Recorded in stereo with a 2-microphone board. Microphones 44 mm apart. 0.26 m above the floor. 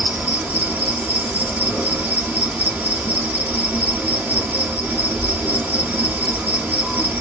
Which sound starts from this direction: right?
An insect, at 0.0 s.